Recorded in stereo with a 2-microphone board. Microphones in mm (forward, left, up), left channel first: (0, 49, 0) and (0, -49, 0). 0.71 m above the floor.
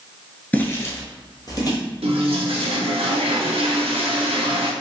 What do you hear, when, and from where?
0.5 s footsteps: 20° left (ahead or behind), 0.7 m; by 1.8 s 40° left (ahead or behind), 1.3 m
2.0 s a toilet flushing: 75° right (ahead or behind), 0.6 m